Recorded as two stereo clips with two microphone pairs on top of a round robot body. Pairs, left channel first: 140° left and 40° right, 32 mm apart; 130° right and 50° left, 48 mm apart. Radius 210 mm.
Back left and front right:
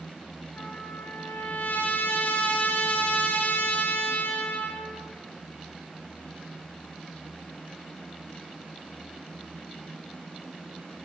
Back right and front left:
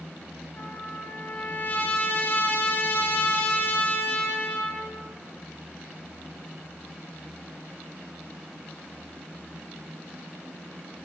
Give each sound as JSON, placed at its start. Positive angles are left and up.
{"t": 0.6, "sound": "a trumpet", "azimuth_deg": 175, "distance_m": 2.5}